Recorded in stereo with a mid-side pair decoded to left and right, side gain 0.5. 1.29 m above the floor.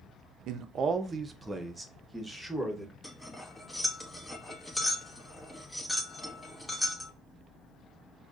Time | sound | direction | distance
0.5 | a man speaking | 70° right | 0.6 m
3.0 | cutlery clinking | 10° left | 1.2 m